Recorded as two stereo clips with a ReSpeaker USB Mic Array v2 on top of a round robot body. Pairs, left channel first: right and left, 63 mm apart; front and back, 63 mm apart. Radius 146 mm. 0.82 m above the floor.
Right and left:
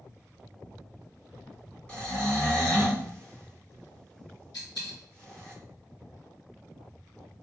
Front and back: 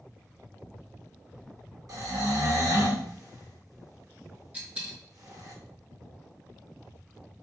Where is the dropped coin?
115° right, 1.0 m.